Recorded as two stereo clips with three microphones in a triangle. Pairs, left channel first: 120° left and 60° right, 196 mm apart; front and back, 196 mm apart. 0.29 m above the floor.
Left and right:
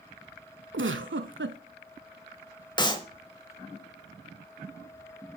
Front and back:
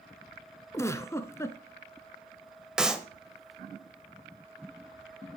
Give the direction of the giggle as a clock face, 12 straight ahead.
2 o'clock.